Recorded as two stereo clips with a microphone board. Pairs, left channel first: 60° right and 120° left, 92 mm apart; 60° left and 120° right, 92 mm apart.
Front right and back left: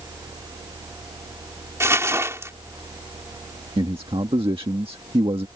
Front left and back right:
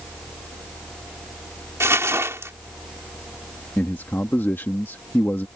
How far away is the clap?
I don't hear a clap.